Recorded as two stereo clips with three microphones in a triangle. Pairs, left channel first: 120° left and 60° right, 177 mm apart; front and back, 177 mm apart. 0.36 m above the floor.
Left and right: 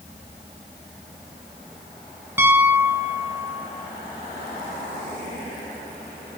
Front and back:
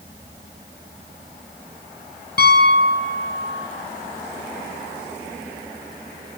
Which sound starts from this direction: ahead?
A piano, at 2.4 s.